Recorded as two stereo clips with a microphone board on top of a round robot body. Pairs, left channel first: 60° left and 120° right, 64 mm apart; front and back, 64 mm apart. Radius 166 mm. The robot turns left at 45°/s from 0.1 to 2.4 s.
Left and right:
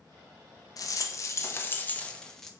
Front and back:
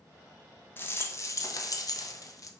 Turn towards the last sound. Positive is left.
turn(degrees=-25)